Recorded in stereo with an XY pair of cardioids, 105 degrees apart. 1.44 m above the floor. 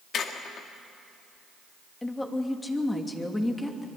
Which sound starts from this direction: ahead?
A woman speaking, at 2.0 s.